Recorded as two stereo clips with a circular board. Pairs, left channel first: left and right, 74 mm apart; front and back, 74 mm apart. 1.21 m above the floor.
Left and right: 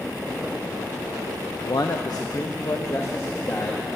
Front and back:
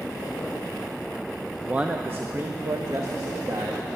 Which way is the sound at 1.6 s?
105° left.